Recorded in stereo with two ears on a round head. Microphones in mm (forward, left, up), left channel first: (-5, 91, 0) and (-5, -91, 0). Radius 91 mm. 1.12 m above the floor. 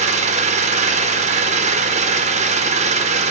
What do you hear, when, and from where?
0.0 s an engine running: 35° right (ahead or behind), 1.1 m